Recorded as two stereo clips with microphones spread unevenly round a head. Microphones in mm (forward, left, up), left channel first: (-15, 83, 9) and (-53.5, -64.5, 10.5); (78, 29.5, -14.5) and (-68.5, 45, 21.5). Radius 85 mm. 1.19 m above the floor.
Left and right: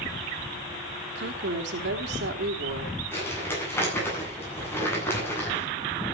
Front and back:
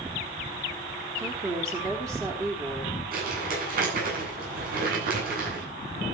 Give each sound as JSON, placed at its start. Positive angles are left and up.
{"t": 1.1, "sound": "a woman speaking", "azimuth_deg": -110, "distance_m": 3.5}
{"t": 3.1, "sound": "crumpling", "azimuth_deg": 150, "distance_m": 9.5}